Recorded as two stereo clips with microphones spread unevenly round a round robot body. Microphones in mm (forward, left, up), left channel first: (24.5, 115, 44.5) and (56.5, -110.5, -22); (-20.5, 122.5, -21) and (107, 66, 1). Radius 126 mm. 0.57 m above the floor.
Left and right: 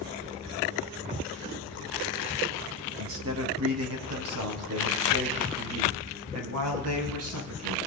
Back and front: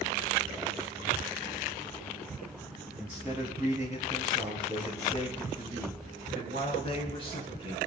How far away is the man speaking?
About 4.5 m.